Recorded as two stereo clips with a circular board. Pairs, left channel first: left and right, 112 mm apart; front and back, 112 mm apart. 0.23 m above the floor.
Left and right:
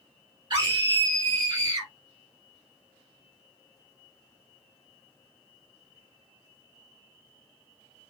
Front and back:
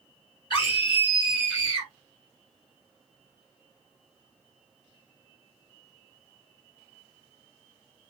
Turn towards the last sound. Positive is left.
turn(degrees=-45)